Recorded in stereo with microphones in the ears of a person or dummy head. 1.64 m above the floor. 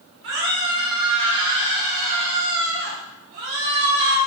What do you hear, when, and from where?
0.2 s a scream: 70° right (ahead or behind), 4.5 m; by 4.2 s 75° right (ahead or behind), 3 m